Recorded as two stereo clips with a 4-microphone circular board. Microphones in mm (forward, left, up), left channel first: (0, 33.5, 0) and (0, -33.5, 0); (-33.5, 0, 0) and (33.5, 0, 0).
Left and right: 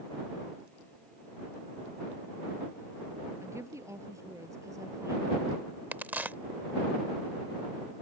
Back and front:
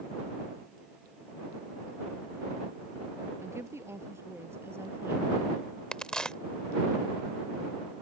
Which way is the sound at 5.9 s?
115° right.